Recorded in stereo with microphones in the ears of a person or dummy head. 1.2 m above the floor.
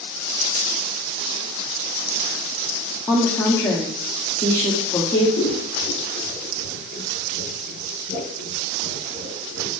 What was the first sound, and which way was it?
A woman speaking, 15° left (ahead or behind).